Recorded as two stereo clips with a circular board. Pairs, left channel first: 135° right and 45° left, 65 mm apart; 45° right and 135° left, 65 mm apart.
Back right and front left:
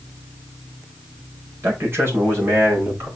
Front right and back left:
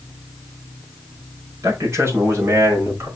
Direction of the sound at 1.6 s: 95° left.